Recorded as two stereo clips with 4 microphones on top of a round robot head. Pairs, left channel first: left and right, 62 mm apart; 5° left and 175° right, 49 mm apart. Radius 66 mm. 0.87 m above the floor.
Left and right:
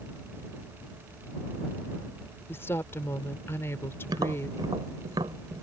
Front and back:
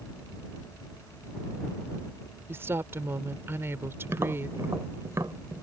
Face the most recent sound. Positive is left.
turn(degrees=-125)